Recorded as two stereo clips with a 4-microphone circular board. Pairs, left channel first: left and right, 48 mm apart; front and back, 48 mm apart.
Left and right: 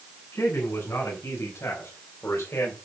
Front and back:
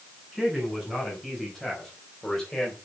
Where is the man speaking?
90° left, 6.5 m; by 2.8 s 75° left, 3.5 m.